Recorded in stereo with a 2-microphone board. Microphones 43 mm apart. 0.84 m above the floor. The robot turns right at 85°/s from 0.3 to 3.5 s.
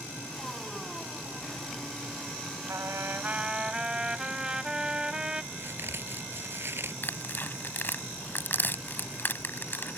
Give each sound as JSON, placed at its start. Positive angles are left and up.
{"t": 2.7, "sound": "a trumpet", "azimuth_deg": -90}
{"t": 5.5, "sound": "a crack", "side_deg": -50}
{"t": 7.0, "sound": "tearing paper", "side_deg": 45}